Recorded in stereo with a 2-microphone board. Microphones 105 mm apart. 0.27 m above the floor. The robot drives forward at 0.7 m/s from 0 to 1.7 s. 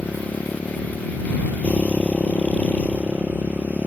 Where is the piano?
I don't hear a piano.